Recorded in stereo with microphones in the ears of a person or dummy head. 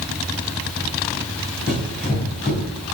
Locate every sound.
1.7 s running footsteps: 10° left (ahead or behind), 1.6 m